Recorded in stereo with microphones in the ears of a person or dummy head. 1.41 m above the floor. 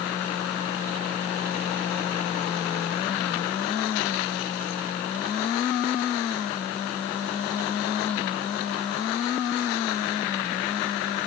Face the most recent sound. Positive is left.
No sound to turn to.